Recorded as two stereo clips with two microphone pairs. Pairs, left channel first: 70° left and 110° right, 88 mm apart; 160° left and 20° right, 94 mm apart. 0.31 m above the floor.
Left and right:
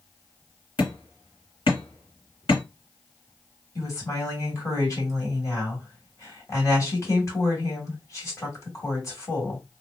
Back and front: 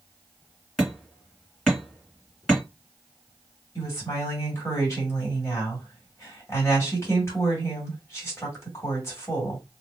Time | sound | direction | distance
0.8 | hammering | 75° left | 1.9 m
3.8 | a woman speaking | 110° left | 2 m